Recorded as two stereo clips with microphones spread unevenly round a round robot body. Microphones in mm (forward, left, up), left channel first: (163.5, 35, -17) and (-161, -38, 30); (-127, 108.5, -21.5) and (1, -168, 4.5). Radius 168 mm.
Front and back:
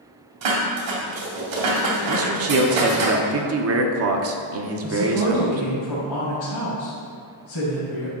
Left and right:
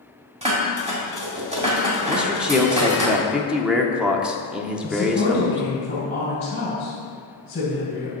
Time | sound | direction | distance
0.4 | dishes clattering | 135° right | 2.5 m
2.1 | a man speaking | 155° right | 1.1 m
4.8 | a woman speaking | 45° left | 3.5 m